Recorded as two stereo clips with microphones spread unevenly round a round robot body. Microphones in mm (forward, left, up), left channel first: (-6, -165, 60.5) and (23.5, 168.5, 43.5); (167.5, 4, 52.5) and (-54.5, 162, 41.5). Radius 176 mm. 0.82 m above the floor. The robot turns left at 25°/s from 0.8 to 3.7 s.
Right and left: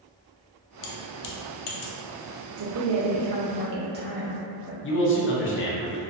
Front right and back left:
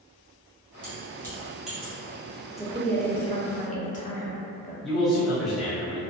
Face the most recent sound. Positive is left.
turn(degrees=-130)